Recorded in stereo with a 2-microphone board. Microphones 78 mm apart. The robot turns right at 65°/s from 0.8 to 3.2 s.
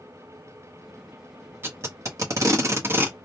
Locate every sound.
1.6 s tape being pulled: 30° right (ahead or behind), 0.8 m; by 3.2 s 20° right (ahead or behind), 0.8 m